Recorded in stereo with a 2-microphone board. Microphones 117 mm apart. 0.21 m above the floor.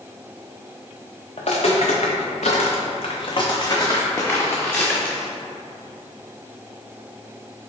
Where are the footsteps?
60° left (ahead or behind), 1.0 m; by 5.3 s 5° left (ahead or behind), 1.5 m.